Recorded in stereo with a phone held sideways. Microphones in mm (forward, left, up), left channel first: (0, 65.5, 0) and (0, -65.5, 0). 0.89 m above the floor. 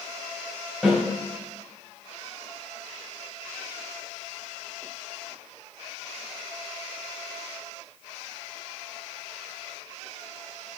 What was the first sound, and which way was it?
A snare drum, centre (ahead or behind).